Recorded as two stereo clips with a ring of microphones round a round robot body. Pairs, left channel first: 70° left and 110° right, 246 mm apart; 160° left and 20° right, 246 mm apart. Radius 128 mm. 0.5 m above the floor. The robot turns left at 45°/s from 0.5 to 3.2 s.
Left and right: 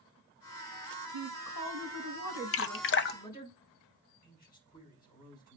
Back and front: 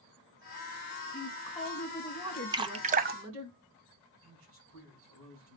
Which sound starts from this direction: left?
A woman speaking, at 1.1 s.